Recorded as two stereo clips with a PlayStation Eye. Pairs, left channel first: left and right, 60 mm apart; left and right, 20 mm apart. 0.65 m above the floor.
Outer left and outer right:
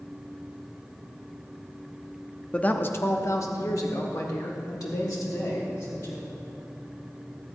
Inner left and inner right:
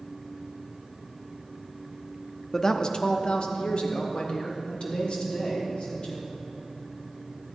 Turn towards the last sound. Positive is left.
turn(degrees=70)  # may be behind; listen again after turning